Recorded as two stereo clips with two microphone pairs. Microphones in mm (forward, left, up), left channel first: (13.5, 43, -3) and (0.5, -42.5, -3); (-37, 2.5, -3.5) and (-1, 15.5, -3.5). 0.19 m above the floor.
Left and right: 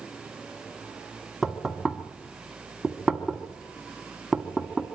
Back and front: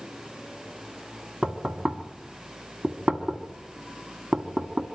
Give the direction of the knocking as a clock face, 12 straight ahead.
12 o'clock.